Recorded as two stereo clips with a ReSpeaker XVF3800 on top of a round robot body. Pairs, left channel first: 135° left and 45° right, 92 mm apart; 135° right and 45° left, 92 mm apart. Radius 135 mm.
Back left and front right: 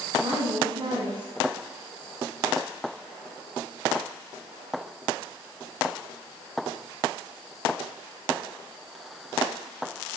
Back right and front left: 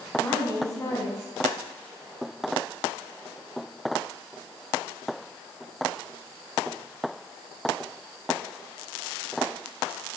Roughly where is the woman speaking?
Right.